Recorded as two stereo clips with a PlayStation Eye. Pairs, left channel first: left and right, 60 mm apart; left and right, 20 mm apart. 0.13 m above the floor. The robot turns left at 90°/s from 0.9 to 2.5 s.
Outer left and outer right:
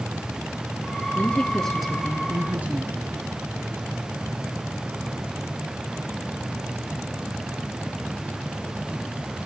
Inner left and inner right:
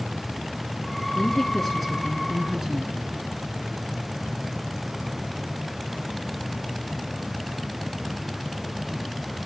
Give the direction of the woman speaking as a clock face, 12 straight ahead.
10 o'clock.